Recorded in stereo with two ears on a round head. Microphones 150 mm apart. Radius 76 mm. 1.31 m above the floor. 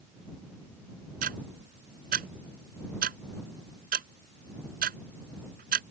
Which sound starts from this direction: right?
Ticking, at 1.2 s.